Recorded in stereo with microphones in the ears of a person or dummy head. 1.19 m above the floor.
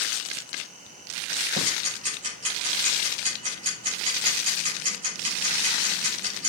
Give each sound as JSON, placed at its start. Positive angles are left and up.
{"t": 1.6, "sound": "ticking", "side_deg": -35, "distance_m": 6.0}